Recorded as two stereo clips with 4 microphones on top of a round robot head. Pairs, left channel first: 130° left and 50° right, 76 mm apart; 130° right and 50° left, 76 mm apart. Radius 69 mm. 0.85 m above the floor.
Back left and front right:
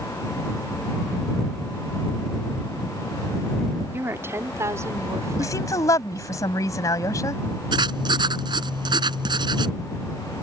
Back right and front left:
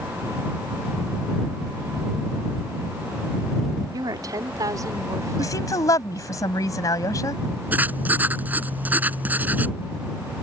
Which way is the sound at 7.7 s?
20° right.